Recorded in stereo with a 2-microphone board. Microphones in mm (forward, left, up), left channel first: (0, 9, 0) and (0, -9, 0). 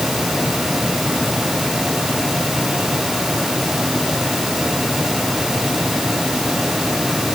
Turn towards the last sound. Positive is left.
No sound to turn to.